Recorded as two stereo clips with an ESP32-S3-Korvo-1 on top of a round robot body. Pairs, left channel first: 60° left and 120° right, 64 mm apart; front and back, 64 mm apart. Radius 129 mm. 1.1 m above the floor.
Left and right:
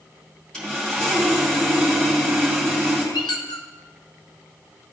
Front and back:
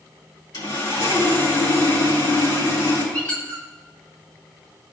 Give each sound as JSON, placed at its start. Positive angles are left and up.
{"t": 0.5, "sound": "sawing", "azimuth_deg": -20, "distance_m": 2.5}
{"t": 3.1, "sound": "a squeak", "azimuth_deg": 75, "distance_m": 0.7}